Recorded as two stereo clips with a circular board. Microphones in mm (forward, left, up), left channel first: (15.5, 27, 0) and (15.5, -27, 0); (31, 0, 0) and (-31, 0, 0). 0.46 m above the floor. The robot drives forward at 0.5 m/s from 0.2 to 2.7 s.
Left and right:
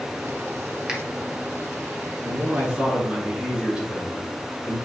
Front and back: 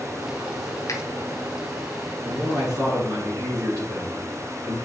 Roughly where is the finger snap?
Ahead.